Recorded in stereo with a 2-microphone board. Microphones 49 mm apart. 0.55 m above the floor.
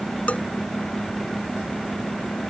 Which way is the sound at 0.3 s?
25° left (ahead or behind).